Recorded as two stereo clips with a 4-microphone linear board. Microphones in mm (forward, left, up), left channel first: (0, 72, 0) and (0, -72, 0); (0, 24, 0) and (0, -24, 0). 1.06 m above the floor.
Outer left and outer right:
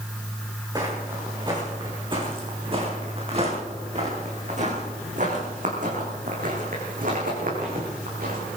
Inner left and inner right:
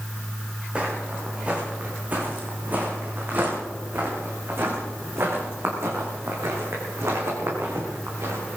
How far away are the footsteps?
About 5.5 m.